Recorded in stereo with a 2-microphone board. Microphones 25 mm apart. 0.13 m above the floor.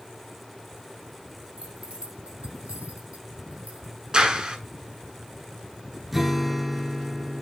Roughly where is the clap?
Right.